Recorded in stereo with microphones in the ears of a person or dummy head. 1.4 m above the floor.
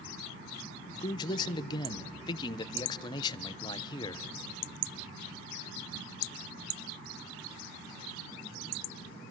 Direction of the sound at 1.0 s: 25° left (ahead or behind).